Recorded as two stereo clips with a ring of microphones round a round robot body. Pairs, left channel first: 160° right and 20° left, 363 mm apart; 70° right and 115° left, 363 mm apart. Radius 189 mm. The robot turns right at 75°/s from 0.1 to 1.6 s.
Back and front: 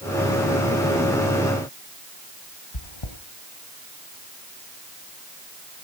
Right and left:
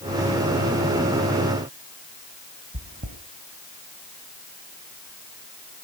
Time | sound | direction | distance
2.7 | chewing | straight behind | 2.5 m